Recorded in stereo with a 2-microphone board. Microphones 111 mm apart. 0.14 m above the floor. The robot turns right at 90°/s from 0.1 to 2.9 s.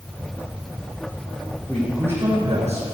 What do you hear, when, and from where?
1.7 s a man speaking: 165° left, 6.5 m; by 2.8 s 90° right, 6.5 m